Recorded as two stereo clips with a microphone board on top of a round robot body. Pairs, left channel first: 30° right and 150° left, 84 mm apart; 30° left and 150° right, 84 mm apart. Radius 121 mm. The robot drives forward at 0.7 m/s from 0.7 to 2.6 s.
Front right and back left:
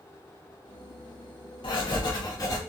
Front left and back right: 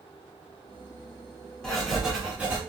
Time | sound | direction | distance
1.6 | writing | 55° right | 1.3 m